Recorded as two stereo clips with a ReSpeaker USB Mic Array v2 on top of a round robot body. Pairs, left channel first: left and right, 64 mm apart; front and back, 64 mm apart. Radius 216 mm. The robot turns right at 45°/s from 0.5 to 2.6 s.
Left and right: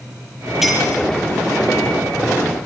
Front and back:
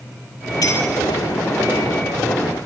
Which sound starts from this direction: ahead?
A clink, at 0.6 s.